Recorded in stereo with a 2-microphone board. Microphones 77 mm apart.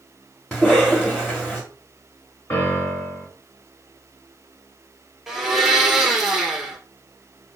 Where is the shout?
No shout in this recording.